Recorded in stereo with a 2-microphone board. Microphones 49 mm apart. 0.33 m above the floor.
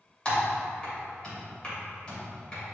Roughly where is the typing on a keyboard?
Left.